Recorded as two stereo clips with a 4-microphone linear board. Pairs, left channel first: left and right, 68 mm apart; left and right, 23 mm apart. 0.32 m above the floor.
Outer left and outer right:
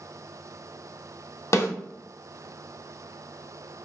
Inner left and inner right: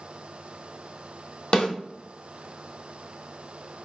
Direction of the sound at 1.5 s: 45° left (ahead or behind).